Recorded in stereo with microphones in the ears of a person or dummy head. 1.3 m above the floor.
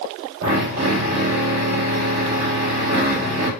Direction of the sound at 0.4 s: 70° right (ahead or behind).